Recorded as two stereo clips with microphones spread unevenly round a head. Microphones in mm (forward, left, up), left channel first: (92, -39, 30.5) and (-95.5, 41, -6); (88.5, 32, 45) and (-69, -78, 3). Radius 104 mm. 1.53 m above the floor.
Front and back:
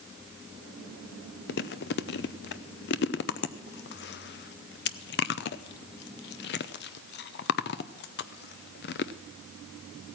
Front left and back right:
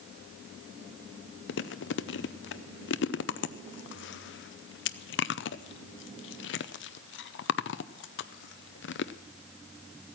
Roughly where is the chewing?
Ahead.